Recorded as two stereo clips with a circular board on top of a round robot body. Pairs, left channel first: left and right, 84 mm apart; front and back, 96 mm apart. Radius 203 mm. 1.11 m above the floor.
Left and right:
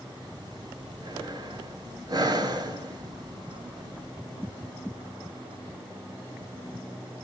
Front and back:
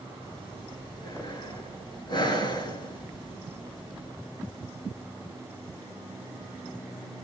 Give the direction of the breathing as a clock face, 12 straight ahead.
2 o'clock.